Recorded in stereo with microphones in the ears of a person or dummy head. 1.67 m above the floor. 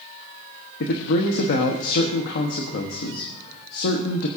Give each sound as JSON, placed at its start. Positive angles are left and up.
{"t": 0.8, "sound": "a man speaking", "side_deg": 55, "distance_m": 1.1}